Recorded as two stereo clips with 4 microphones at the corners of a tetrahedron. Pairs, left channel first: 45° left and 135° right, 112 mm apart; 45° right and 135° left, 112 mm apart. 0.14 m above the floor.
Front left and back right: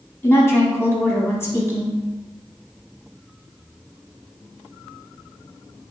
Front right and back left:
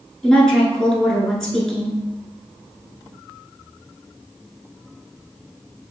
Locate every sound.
0.2 s a woman speaking: 25° left, 1.2 m